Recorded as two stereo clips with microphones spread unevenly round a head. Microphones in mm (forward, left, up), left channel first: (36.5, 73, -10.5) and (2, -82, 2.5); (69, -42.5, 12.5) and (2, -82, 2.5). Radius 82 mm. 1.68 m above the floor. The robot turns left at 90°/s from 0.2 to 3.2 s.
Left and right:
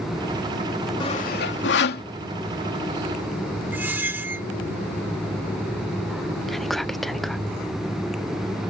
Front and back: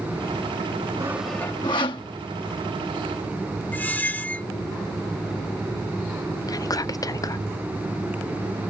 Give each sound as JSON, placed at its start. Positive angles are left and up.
{"t": 1.0, "sound": "sawing", "azimuth_deg": 140}
{"t": 3.7, "sound": "a squeak", "azimuth_deg": -30}
{"t": 6.5, "sound": "whispering", "azimuth_deg": -10}